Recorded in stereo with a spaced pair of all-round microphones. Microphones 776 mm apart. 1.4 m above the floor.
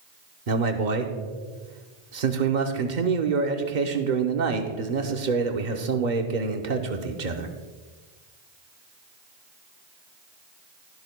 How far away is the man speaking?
About 1.0 m.